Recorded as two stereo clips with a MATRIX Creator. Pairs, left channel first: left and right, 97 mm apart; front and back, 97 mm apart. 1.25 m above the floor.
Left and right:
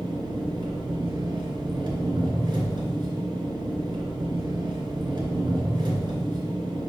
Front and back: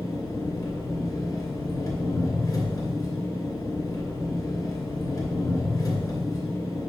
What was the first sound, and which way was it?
An engine running, 50° right.